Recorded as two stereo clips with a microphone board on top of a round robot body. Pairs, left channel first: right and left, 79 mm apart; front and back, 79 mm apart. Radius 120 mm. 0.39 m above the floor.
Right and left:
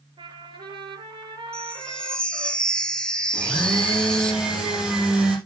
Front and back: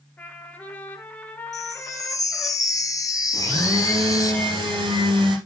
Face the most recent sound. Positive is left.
turn(degrees=170)